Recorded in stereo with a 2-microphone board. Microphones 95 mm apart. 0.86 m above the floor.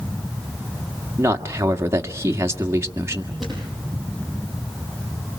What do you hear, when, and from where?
1.2 s a man speaking: 30° right (ahead or behind), 1.7 m
3.4 s a thud: 5° left (ahead or behind), 9.5 m